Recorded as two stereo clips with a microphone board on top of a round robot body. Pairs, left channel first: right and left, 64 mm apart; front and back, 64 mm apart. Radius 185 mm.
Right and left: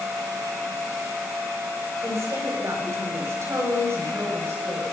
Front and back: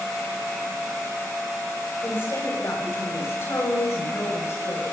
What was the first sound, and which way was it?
A woman speaking, 50° left.